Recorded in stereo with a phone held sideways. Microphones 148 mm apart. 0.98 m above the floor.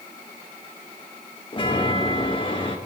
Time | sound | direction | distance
1.5 | a chime | 35° left (ahead or behind) | 1.6 m